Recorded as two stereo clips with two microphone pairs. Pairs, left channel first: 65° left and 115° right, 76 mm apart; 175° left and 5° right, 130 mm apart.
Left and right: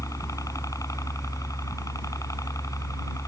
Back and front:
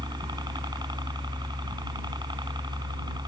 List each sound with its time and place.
0.0 s a helicopter: 40° left